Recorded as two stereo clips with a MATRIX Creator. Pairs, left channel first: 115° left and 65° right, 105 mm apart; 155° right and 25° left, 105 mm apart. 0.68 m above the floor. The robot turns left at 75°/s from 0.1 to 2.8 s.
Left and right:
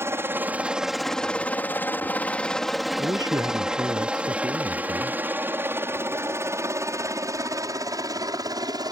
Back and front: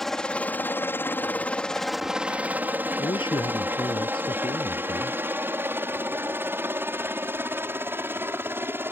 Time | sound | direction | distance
0.0 | a helicopter | 75° right | ?
3.0 | a man speaking | 120° right | ?